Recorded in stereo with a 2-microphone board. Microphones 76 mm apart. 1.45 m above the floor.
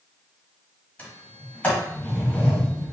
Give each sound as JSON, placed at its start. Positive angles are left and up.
{"t": 1.0, "sound": "a sliding door", "side_deg": 15, "distance_m": 1.7}